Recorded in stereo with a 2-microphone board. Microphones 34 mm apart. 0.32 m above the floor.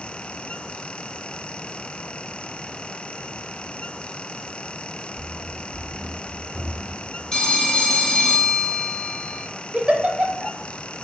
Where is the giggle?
30° right (ahead or behind), 0.7 m.